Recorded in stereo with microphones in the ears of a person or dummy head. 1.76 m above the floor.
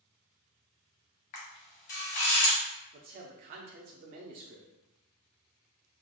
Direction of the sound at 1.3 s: 40° left (ahead or behind).